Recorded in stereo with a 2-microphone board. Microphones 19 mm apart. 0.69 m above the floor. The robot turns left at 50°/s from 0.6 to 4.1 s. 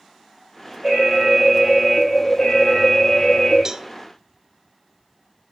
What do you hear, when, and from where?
0.8 s an alarm: 130° right, 5 m; by 3.6 s 90° left, 5 m
3.6 s a cowbell: 30° right (ahead or behind), 0.6 m